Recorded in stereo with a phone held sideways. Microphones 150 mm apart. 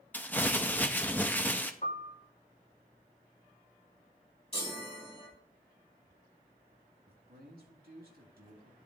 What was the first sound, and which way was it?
Crumpling, 10° left (ahead or behind).